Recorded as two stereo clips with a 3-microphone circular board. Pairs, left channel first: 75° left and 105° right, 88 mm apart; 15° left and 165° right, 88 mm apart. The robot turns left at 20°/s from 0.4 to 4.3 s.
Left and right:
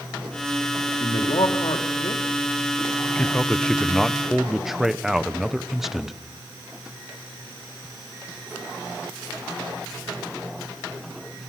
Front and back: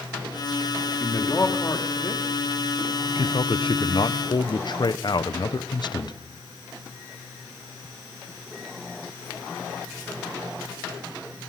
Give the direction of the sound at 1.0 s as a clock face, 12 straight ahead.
9 o'clock.